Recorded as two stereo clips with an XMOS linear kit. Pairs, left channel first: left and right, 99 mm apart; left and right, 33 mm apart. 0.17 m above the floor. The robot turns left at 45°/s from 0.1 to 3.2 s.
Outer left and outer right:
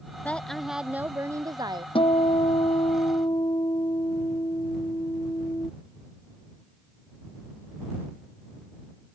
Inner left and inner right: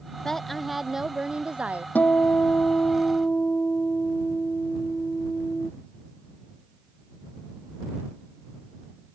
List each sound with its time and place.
0.2 s a woman speaking: 15° left; by 1.9 s 55° right
1.9 s a guitar: 105° left; by 5.7 s 50° left